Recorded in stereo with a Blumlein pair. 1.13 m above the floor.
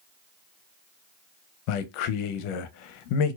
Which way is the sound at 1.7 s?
45° left.